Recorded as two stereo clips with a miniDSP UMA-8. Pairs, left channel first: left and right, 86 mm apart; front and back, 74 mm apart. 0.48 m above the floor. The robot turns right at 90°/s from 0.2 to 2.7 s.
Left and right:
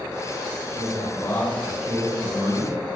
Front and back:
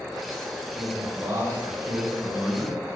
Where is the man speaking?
95° left, 2.5 m; by 2.9 s 90° right, 2.5 m.